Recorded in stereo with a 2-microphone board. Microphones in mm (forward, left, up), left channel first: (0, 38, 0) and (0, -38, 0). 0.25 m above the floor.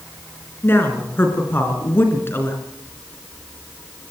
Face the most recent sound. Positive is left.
turn(degrees=30)  # may be behind; listen again after turning